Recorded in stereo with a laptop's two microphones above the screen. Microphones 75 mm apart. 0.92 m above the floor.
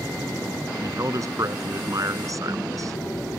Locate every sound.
0.8 s a man speaking: 50° right (ahead or behind)